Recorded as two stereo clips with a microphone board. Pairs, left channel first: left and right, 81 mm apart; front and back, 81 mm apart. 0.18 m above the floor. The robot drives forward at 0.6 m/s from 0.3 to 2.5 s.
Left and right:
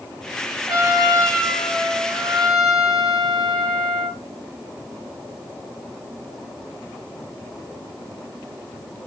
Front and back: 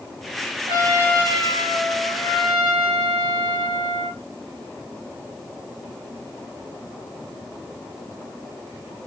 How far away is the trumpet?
About 2 m.